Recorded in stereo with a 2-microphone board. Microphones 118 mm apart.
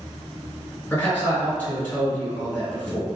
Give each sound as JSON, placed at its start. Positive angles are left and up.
{"t": 0.9, "sound": "a man speaking", "side_deg": 15, "distance_m": 1.9}